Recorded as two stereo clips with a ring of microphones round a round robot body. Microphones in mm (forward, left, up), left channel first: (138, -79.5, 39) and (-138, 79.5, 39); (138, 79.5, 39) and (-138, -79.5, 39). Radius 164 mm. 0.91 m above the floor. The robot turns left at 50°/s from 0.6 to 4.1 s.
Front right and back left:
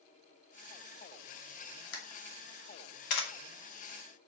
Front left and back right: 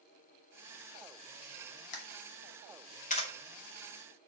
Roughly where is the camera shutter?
Ahead.